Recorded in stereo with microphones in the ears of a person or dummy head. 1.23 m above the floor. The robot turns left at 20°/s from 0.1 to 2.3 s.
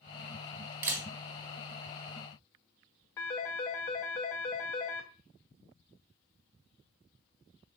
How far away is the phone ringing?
About 0.6 m.